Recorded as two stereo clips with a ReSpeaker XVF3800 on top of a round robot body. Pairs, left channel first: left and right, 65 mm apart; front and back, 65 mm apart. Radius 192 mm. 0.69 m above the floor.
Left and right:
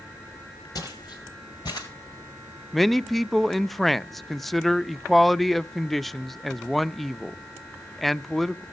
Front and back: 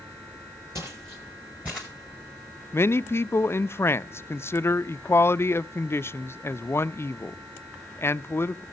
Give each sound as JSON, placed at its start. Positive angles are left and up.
{"t": 0.8, "sound": "footsteps", "azimuth_deg": 130, "distance_m": 1.3}
{"t": 2.7, "sound": "a man speaking", "azimuth_deg": 5, "distance_m": 0.5}